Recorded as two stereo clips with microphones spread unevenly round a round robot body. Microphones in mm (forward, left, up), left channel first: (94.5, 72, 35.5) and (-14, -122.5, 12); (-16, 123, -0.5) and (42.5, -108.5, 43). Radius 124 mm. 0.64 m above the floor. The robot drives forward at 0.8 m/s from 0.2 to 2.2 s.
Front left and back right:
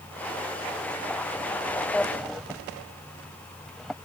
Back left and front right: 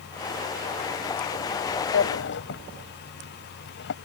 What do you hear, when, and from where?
1.9 s a drawer: 145° left; by 3.9 s 150° left